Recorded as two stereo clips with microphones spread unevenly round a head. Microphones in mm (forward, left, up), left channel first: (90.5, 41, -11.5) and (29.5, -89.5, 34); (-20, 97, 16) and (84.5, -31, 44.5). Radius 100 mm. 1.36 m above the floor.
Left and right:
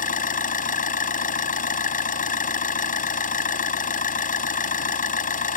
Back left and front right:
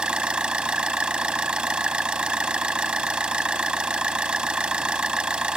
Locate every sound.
0.0 s an engine running: 30° left